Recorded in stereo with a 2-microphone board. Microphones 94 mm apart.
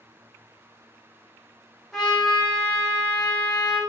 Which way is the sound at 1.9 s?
Centre (ahead or behind).